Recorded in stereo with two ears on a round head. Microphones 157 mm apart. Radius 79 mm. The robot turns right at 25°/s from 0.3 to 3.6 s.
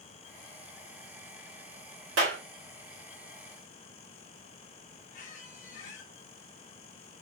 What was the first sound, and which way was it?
A clap, 80° right.